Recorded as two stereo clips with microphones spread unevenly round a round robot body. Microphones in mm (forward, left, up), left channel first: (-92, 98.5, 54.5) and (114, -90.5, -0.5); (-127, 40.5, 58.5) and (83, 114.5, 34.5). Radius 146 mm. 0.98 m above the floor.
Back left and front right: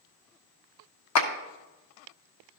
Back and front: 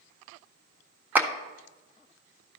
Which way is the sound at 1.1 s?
100° left.